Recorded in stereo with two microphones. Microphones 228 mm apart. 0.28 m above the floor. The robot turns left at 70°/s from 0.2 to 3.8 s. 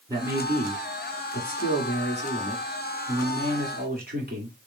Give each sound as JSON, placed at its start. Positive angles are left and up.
{"t": 0.1, "sound": "a man speaking", "azimuth_deg": -160, "distance_m": 2.5}